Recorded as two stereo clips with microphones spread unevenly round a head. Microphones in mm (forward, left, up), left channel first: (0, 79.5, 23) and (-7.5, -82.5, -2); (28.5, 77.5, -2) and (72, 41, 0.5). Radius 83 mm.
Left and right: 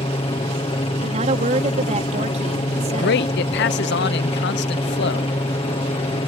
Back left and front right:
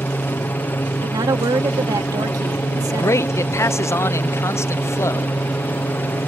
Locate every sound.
0.0 s a helicopter: 130° left
1.0 s a woman speaking: 40° right
2.9 s a man speaking: 105° left